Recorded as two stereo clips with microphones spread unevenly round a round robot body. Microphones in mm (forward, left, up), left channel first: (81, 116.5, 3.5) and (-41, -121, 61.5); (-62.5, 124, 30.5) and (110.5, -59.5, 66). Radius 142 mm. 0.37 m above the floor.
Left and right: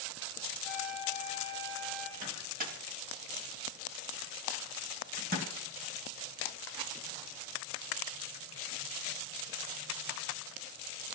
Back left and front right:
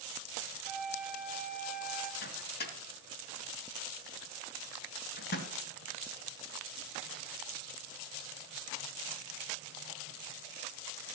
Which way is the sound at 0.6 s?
135° right.